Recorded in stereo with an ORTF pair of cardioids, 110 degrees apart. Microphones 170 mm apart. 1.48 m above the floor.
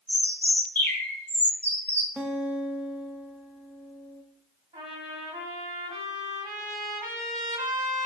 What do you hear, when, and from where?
0.1 s a bird: 10° left, 1.5 m
2.2 s a guitar: 10° right, 0.7 m
4.7 s a trumpet: 25° right, 2 m